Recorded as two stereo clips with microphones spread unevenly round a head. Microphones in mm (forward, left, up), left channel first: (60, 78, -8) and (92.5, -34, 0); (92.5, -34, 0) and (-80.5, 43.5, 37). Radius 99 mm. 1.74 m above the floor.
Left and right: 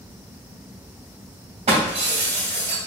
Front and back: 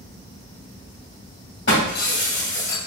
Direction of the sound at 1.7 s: 60° right.